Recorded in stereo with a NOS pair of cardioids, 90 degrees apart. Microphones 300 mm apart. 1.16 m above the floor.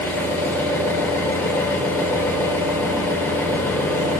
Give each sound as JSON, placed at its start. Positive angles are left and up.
{"t": 0.0, "sound": "an engine running", "azimuth_deg": 10, "distance_m": 3.5}